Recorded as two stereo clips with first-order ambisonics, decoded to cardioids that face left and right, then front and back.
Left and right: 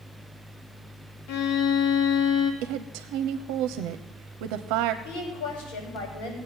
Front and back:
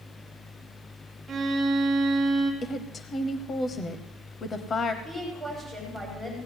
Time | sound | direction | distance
1.3 | a violin | 110° left | 1.8 m
2.6 | a woman speaking | 70° right | 0.9 m
5.0 | a woman speaking | 80° left | 7 m